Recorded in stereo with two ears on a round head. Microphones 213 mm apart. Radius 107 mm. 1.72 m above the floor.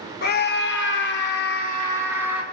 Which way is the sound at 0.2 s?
40° left (ahead or behind).